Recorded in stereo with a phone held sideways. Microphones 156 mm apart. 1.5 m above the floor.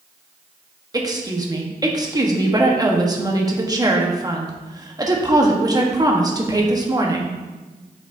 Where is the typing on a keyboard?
I don't hear typing on a keyboard.